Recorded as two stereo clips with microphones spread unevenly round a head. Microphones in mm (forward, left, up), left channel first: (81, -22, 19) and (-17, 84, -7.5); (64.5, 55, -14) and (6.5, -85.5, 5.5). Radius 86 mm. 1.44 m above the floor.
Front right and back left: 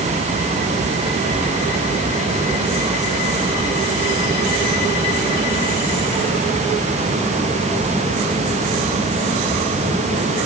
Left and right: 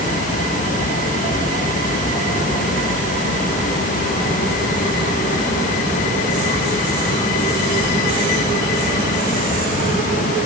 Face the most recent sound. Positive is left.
No sound to turn to.